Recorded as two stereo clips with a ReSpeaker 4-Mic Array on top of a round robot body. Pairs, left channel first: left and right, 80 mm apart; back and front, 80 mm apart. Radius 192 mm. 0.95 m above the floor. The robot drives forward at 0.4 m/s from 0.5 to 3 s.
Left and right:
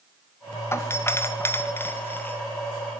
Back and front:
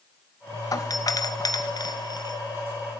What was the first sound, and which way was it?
A doorbell, 145° left.